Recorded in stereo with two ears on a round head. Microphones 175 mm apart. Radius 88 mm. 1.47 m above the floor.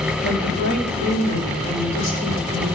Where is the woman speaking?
55° left (ahead or behind), 3 m; by 2.7 s 70° left (ahead or behind), 5.5 m.